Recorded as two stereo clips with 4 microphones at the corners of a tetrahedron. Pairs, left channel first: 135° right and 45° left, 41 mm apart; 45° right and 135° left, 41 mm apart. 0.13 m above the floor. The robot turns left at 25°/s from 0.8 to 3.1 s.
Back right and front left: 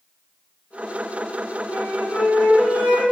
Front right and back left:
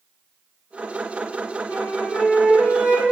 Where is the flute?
95° right, 1.9 m; by 3.0 s 130° right, 1.9 m.